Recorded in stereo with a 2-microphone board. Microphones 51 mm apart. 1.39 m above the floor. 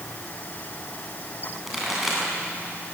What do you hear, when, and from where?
1.7 s a pop: 5° right (ahead or behind), 9 m